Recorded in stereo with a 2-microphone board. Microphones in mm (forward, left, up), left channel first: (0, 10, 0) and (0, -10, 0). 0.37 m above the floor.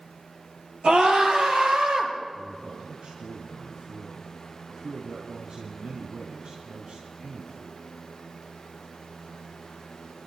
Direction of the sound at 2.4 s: 65° right (ahead or behind).